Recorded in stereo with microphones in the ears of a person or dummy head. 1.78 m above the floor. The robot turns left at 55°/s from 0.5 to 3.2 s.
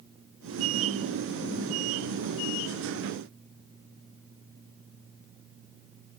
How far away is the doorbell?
I don't hear a doorbell.